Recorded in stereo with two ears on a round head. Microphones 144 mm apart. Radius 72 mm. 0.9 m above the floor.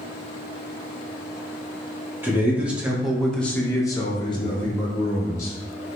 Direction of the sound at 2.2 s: 15° right (ahead or behind).